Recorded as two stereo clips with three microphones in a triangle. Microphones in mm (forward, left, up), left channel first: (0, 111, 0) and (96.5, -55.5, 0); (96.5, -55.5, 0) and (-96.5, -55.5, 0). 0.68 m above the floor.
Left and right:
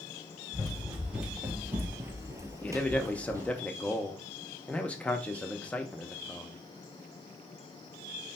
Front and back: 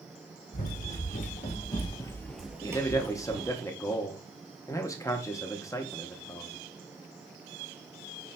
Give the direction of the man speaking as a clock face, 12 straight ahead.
10 o'clock.